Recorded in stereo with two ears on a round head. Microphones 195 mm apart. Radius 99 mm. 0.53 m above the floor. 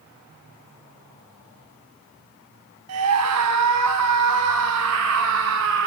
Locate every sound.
2.9 s a scream: 80° right, 4 m; by 5.9 s 55° right (ahead or behind), 5 m